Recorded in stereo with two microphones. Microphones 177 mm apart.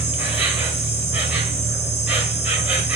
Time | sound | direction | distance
0.0 | an insect | 10° right (ahead or behind) | 1.8 m